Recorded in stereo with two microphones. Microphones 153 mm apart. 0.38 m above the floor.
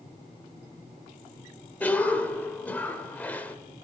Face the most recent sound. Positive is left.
turn(degrees=10)  # may be behind; listen again after turning